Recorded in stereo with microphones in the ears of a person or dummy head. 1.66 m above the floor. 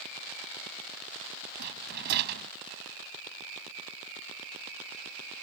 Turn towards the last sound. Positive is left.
turn(degrees=-60)  # may be behind; listen again after turning